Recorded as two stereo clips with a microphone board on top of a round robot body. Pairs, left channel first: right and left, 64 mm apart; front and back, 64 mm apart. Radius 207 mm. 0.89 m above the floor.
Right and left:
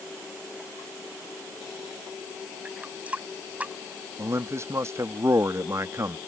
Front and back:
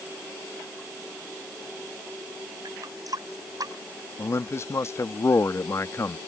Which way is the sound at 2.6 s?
160° left.